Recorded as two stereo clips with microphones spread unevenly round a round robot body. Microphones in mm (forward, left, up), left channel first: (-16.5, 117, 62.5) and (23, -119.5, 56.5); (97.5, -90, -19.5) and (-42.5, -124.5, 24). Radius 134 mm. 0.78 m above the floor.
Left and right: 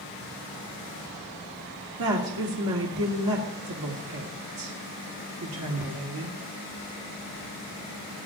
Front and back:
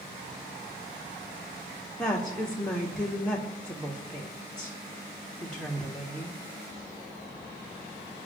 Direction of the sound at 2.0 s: 65° right.